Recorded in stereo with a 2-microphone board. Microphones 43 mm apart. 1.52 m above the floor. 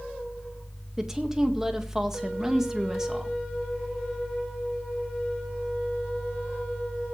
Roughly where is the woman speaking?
Centre.